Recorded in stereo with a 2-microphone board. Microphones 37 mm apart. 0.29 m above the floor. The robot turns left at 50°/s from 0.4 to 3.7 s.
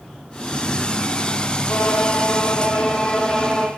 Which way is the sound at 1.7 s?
90° left.